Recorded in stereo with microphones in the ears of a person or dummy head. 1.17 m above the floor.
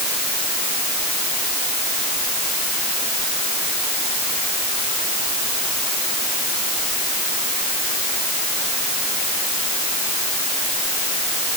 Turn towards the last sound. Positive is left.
No sound to turn to.